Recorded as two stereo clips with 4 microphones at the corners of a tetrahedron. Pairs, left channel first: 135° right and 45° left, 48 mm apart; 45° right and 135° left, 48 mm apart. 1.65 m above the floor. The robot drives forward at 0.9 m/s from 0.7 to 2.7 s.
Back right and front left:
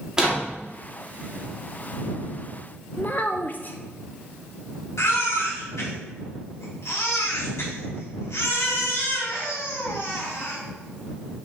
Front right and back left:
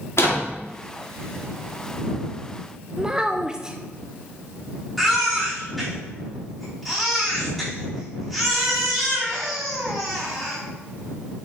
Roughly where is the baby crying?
Behind right.